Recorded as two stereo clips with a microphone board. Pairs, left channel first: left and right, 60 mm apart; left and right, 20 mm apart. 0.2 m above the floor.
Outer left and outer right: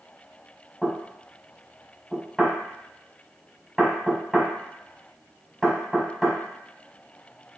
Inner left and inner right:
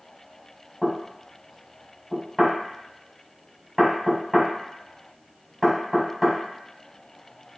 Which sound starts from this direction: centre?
Knocking, at 0.8 s.